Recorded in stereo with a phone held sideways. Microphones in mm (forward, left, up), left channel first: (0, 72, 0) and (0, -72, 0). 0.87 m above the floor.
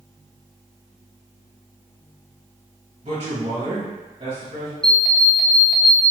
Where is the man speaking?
45° right (ahead or behind), 1.3 m.